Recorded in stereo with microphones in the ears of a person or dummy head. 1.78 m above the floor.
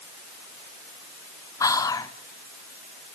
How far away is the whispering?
About 1.4 m.